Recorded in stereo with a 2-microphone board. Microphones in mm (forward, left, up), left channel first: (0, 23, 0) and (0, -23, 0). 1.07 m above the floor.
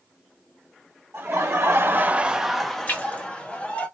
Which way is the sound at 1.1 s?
75° right (ahead or behind).